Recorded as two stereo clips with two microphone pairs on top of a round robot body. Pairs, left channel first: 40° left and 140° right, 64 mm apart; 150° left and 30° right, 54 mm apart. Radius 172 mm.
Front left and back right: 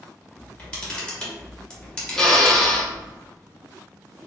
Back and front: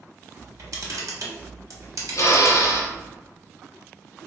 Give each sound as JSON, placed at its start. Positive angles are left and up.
{"t": 0.4, "sound": "a camera shutter", "azimuth_deg": -35, "distance_m": 1.3}
{"t": 2.1, "sound": "a drill", "azimuth_deg": 125, "distance_m": 0.9}